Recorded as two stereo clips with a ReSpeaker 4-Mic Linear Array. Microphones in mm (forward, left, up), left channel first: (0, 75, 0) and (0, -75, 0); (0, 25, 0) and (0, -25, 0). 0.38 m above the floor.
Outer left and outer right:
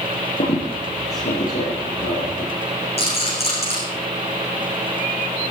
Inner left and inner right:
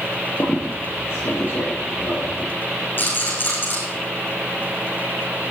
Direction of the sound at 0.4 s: 85° left.